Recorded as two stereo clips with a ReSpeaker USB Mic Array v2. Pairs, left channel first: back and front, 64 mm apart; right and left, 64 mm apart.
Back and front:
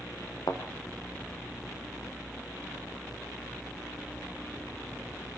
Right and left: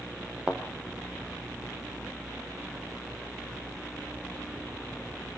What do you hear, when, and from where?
0.5 s a thud: 165° left, 3 m